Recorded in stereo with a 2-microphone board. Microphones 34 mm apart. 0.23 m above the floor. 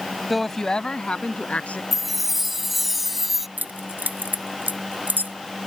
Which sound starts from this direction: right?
Keys jangling, at 3.6 s.